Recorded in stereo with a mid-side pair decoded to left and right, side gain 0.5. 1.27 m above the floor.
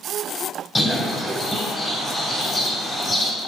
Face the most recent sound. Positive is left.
turn(degrees=20)